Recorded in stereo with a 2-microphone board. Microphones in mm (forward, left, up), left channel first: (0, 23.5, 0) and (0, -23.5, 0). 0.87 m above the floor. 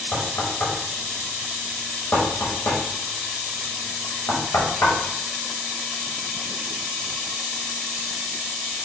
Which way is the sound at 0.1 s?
55° left (ahead or behind).